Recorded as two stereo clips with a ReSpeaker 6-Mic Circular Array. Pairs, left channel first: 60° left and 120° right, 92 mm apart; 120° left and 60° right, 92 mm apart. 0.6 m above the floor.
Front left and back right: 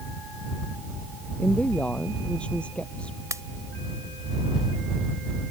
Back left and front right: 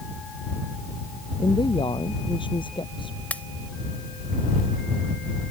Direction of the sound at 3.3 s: 170° right.